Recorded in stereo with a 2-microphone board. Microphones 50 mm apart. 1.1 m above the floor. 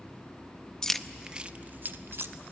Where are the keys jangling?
15° left (ahead or behind), 0.6 m; by 2.3 s 55° right (ahead or behind), 0.9 m.